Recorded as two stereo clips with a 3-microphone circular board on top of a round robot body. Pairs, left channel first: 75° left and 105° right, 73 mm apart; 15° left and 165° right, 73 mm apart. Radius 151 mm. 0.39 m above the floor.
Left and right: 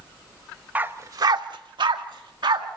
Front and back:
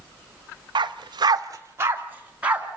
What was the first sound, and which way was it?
A dog barking, 175° right.